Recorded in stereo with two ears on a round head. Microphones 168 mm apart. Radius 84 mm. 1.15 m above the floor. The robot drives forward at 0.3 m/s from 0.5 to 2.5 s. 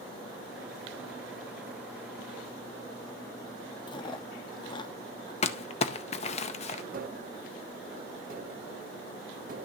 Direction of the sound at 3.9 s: 25° left (ahead or behind).